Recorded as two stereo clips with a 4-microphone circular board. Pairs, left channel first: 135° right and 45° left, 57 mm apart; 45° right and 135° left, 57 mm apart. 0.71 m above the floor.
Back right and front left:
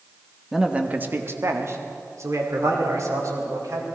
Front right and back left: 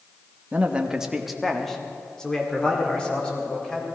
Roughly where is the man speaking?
Behind left.